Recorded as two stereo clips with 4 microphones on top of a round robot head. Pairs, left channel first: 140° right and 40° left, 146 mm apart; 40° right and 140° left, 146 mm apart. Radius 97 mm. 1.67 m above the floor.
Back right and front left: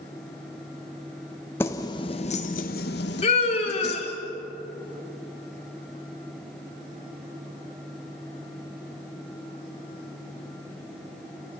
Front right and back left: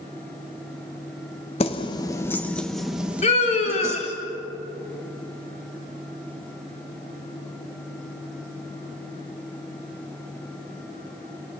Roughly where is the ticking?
I don't hear ticking.